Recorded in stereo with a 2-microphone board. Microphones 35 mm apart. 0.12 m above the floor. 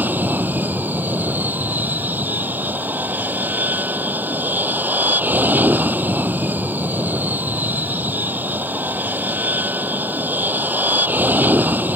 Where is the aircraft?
60° right (ahead or behind).